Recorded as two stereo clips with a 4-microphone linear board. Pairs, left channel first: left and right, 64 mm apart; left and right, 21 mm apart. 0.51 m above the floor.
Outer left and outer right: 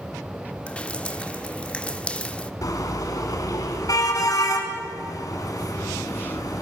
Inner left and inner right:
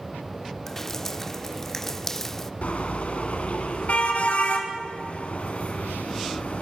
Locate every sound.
0.7 s dripping: 15° left (ahead or behind), 0.6 m
2.6 s a car horn: 65° left (ahead or behind), 2.5 m